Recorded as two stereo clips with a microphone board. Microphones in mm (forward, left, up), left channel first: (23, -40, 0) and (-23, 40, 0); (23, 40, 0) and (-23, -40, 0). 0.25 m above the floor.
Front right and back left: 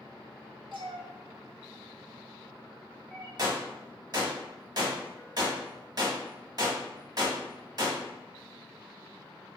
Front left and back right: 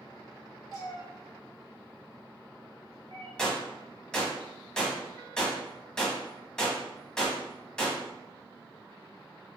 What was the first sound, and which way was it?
A cat meowing, 110° left.